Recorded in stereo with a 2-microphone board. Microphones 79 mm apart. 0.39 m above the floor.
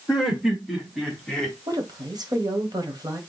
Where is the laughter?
5° right (ahead or behind), 4.5 m; by 1.6 s 15° left (ahead or behind), 2.5 m.